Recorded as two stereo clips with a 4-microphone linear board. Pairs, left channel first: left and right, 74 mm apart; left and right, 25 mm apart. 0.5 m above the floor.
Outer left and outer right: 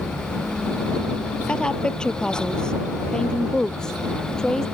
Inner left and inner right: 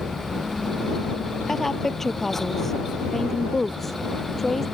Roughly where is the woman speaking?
Centre.